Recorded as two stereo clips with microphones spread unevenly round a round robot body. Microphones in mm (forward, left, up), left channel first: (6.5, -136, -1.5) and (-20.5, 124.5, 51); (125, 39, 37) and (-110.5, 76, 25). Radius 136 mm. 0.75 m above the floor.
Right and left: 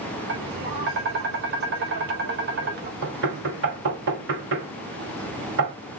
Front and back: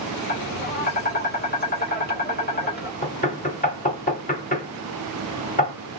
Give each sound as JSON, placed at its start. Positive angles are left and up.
{"t": 0.3, "sound": "tapping", "azimuth_deg": 40, "distance_m": 2.5}
{"t": 3.0, "sound": "knocking", "azimuth_deg": 50, "distance_m": 2.5}